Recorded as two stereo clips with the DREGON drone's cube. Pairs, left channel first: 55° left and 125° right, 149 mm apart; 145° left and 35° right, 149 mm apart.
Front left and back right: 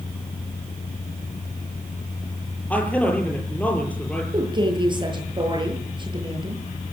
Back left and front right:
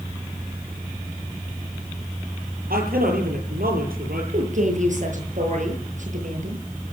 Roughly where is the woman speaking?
Ahead right.